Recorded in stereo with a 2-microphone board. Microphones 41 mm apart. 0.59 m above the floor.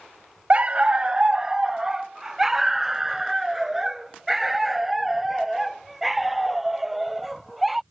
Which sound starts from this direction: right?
A dog barking, at 0.5 s.